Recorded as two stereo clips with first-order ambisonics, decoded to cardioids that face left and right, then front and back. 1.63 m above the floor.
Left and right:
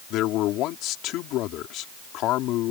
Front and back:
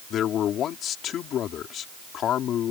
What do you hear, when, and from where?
0.1 s a man speaking: 50° left